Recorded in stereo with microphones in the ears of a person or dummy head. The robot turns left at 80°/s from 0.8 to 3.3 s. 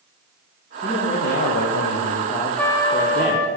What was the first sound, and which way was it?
A man speaking, 165° left.